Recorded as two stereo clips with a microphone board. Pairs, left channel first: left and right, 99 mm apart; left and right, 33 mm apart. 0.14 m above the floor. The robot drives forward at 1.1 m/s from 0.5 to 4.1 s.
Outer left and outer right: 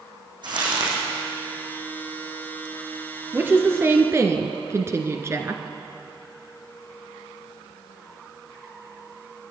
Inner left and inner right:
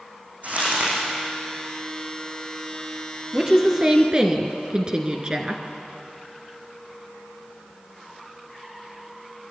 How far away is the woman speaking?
About 2 m.